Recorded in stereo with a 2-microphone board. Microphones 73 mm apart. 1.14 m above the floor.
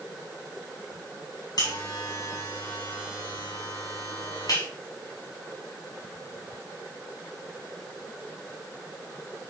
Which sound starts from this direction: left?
A buzzer, at 1.6 s.